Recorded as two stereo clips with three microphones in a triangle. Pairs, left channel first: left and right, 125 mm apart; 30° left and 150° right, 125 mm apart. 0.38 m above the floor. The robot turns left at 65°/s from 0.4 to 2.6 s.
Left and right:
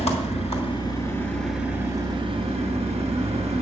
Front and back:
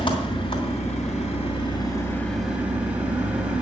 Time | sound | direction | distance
0.0 | an engine running | 75° left | 2.5 m